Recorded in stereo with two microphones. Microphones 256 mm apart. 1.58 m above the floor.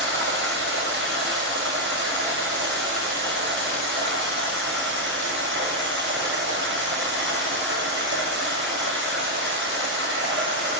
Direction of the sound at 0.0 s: 50° right (ahead or behind).